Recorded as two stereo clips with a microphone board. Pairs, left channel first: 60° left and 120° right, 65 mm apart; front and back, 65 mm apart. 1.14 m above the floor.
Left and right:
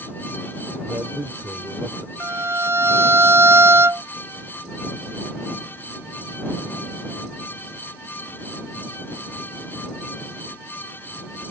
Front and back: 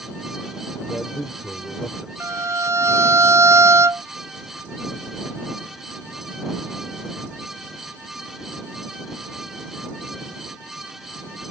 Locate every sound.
0.9 s a man speaking: 85° right
2.2 s a violin: 155° right